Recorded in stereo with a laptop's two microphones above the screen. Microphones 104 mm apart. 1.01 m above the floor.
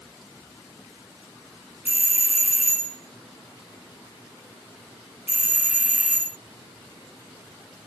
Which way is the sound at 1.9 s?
20° right (ahead or behind).